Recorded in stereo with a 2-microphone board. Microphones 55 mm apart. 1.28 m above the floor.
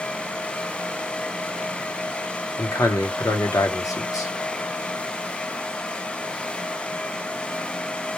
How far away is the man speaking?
About 0.8 m.